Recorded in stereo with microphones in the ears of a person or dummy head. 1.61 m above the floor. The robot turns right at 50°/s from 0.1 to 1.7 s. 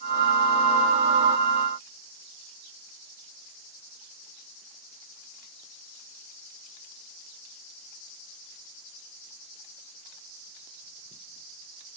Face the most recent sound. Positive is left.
No sound to turn to.